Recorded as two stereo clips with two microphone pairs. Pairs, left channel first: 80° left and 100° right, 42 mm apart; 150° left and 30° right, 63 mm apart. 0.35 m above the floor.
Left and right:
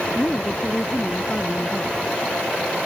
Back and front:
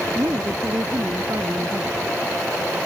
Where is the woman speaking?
15° left.